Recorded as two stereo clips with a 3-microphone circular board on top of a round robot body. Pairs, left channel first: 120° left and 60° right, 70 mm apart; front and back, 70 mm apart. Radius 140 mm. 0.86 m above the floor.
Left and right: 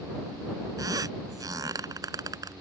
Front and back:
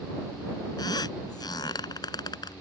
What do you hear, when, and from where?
0.8 s a squeak: 25° right